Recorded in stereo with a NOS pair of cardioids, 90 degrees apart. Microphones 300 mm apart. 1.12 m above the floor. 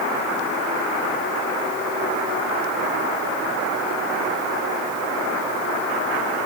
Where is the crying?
No crying in this recording.